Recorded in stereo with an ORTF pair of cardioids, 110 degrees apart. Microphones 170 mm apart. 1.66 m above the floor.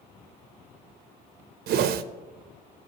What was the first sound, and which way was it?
A whoosh, 70° right.